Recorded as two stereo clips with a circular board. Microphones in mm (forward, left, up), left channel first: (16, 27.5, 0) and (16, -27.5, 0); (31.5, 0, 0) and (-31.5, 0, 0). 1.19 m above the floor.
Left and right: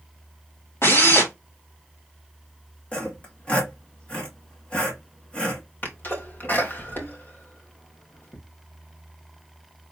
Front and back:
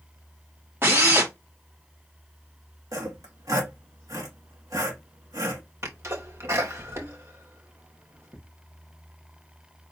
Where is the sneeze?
140° left, 2 m.